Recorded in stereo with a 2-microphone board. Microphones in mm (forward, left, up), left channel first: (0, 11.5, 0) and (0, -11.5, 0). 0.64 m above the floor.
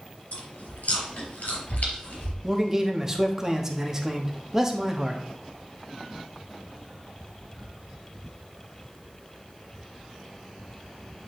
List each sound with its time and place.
0.3 s chewing: 75° left (ahead or behind), 3.5 m
2.4 s a man speaking: 20° right (ahead or behind), 1.0 m